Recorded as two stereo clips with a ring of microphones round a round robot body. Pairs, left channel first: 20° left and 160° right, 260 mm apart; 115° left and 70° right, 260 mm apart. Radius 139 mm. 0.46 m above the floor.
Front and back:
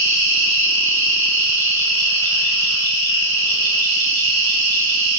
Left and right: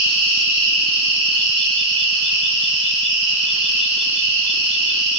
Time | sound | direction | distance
0.0 | an insect | 140° right | 2.0 m